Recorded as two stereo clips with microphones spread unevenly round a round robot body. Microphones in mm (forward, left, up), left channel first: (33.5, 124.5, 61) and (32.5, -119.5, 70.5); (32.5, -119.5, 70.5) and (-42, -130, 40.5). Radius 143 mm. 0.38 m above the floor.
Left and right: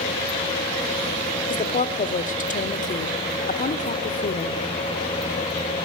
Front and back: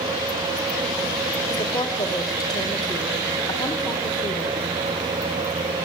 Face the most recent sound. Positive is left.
turn(degrees=50)